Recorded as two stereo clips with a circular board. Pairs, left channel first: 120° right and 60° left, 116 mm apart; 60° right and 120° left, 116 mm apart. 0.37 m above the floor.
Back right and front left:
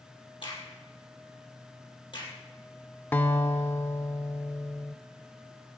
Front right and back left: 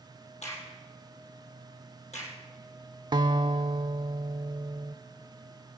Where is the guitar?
165° left, 0.6 m.